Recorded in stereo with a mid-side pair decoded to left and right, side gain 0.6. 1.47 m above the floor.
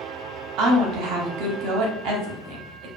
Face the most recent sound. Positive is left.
turn(degrees=-70)